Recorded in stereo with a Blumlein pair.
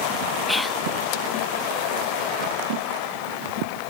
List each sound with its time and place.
0.5 s whispering: 5° left